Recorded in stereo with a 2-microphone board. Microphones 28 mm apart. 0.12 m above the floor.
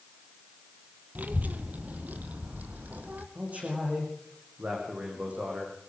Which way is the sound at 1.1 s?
70° right (ahead or behind).